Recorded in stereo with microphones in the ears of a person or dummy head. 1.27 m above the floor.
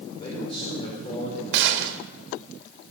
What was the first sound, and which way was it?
A man speaking, 25° left (ahead or behind).